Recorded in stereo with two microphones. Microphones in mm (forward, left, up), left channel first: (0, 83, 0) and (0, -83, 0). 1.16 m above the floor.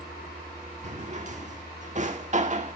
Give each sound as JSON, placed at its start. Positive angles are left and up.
{"t": 0.8, "sound": "a drawer", "side_deg": -45, "distance_m": 1.4}